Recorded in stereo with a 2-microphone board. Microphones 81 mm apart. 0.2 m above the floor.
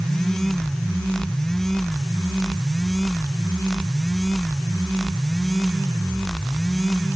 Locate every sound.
Only background noise.